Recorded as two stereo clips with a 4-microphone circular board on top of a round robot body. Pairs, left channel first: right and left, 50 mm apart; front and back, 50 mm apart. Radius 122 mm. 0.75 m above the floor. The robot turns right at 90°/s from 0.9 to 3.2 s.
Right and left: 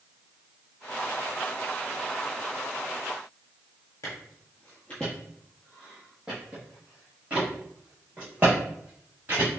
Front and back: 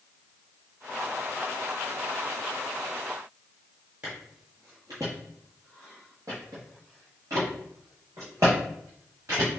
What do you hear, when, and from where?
4.0 s footsteps: 120° right, 0.9 m; by 9.5 s 145° left, 3 m